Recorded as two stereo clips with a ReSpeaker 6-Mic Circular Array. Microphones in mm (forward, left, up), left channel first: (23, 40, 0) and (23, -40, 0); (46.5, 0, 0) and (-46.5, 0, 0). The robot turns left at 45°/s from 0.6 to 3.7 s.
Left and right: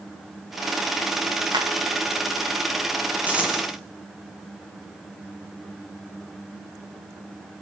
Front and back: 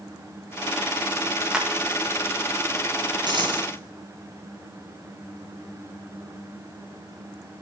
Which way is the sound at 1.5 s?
100° right.